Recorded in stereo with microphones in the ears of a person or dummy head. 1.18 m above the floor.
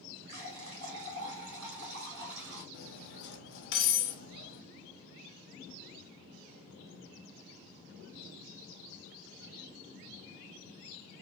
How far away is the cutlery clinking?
About 0.8 m.